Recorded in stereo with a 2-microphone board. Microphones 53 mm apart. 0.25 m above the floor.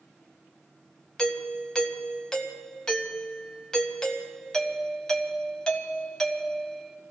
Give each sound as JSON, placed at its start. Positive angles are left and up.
{"t": 1.2, "sound": "a doorbell", "side_deg": 15, "distance_m": 1.8}